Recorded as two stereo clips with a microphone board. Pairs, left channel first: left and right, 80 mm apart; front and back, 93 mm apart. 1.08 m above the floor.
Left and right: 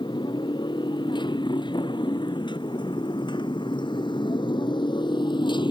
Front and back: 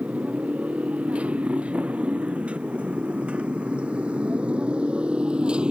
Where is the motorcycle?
105° left; by 5.7 s 100° left.